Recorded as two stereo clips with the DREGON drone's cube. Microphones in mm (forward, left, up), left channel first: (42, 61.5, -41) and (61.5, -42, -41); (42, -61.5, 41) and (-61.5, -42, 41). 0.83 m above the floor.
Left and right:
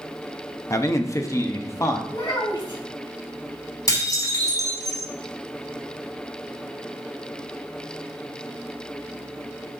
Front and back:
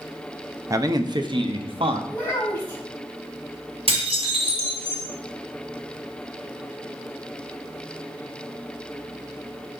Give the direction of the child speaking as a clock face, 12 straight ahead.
10 o'clock.